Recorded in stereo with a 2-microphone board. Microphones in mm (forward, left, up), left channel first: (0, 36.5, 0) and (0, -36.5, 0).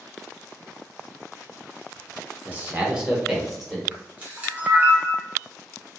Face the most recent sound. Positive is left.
turn(degrees=-20)  # may be behind; listen again after turning